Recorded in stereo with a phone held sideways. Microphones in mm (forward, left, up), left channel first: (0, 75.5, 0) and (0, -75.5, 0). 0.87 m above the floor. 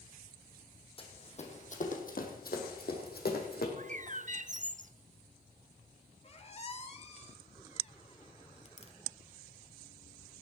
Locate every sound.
1.0 s running footsteps: 35° left (ahead or behind), 2.5 m; by 3.7 s 70° left (ahead or behind), 3 m
3.8 s a bird: 50° right (ahead or behind), 0.5 m
6.2 s a squeak: 40° left (ahead or behind), 1.4 m